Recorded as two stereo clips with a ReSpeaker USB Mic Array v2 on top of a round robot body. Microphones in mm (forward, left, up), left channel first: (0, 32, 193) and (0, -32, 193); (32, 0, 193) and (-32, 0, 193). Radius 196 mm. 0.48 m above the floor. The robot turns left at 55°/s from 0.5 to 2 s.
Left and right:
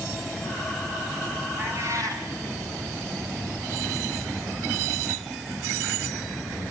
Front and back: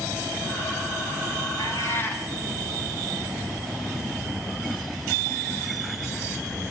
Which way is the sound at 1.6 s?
35° right.